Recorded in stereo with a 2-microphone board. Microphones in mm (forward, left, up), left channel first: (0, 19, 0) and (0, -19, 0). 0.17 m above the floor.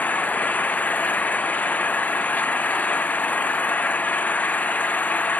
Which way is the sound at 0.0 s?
45° left (ahead or behind).